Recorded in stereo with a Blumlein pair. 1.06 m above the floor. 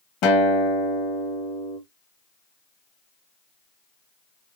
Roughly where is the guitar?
Ahead left.